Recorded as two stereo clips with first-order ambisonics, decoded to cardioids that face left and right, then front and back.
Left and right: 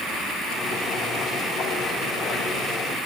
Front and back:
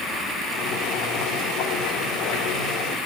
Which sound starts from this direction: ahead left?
Boiling, at 0.5 s.